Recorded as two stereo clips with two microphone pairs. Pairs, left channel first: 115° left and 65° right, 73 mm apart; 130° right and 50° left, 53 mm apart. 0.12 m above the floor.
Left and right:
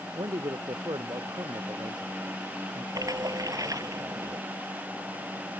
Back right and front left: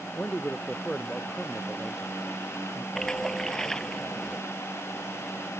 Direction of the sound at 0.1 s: 70° right.